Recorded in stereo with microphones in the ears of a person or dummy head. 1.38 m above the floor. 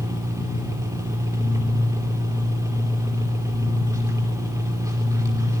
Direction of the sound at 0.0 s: 15° right (ahead or behind).